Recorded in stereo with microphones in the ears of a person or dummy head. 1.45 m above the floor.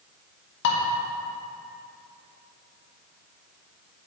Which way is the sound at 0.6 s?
70° left (ahead or behind).